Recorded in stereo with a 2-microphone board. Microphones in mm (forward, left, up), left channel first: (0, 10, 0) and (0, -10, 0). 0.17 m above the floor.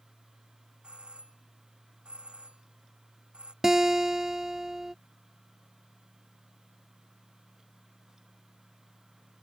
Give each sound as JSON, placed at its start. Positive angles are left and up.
{"t": 0.8, "sound": "a doorbell", "side_deg": -70}
{"t": 3.6, "sound": "a guitar", "side_deg": -25}